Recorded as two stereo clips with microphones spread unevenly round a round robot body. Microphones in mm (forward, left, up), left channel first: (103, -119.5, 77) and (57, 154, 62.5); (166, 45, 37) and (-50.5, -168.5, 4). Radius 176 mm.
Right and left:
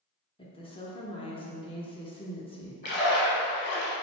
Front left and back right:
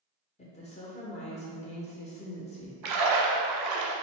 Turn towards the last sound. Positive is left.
turn(degrees=-140)